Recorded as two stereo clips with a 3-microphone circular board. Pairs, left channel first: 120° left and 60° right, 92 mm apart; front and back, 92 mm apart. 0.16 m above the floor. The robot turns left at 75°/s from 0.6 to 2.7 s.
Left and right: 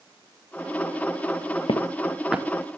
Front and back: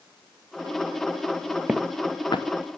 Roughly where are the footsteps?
Left.